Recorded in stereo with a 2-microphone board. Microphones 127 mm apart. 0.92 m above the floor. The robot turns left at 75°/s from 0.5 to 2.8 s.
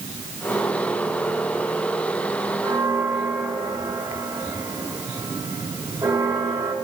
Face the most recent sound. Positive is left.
turn(degrees=-35)  # may be behind; listen again after turning